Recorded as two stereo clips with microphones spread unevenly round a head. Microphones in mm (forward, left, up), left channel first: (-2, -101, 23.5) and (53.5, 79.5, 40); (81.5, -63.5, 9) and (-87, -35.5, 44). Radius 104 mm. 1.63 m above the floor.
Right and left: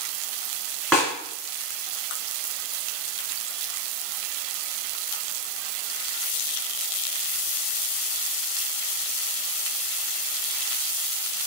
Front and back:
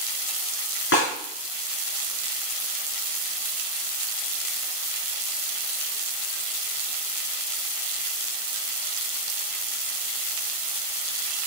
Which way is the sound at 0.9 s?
15° right.